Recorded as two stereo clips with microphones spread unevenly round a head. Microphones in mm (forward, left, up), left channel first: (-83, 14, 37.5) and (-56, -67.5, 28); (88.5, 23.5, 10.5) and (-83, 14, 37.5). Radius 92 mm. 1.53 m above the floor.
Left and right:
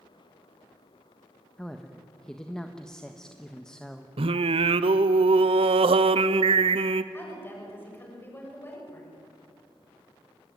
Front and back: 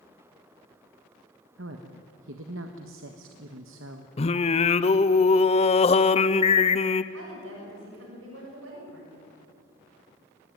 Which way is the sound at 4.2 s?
55° right.